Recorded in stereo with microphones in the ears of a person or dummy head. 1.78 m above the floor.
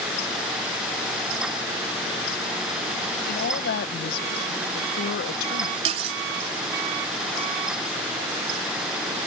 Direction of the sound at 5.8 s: 40° right (ahead or behind).